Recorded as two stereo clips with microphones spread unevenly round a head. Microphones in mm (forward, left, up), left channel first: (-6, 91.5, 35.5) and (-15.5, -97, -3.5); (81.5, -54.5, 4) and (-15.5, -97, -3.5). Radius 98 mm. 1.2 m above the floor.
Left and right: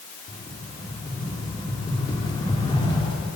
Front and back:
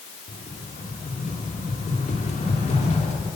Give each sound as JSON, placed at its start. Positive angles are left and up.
{"t": 0.3, "sound": "a rattle", "azimuth_deg": 20, "distance_m": 3.0}